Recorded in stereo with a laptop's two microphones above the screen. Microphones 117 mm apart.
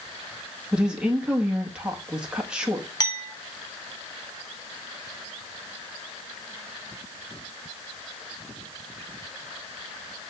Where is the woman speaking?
10° right (ahead or behind), 1.5 m.